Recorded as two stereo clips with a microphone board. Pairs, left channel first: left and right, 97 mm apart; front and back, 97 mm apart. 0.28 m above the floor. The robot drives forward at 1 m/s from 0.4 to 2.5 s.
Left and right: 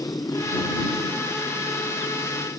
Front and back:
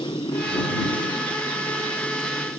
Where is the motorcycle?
35° left; by 2.6 s 40° left.